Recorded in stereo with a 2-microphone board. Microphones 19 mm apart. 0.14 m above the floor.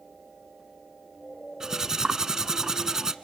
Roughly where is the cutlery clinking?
Right.